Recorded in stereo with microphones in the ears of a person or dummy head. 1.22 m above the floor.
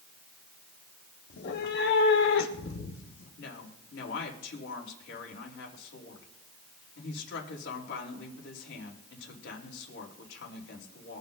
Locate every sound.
1.3 s a cat meowing: 60° left (ahead or behind), 1.3 m; by 3.3 s 80° left, 3 m
3.4 s a woman speaking: 70° left (ahead or behind), 3.5 m